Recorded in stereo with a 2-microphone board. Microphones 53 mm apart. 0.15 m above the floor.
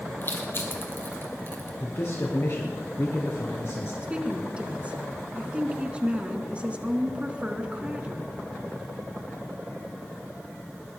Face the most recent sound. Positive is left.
turn(degrees=-25)  # may be behind; listen again after turning